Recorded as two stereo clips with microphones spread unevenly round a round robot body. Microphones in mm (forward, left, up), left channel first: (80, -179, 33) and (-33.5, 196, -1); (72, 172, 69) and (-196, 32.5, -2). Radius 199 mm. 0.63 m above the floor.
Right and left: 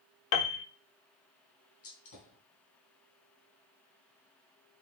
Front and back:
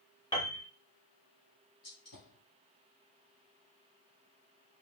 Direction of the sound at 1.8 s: 25° right.